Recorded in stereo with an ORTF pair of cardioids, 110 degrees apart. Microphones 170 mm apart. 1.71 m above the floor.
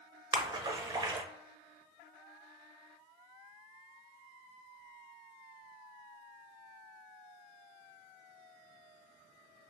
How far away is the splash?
About 0.6 m.